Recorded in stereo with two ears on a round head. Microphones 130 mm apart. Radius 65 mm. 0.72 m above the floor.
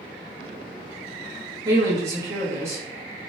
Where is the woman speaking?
20° right (ahead or behind), 0.9 m.